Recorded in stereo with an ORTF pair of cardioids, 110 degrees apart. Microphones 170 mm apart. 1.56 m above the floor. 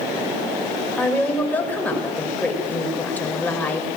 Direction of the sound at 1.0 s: 10° left.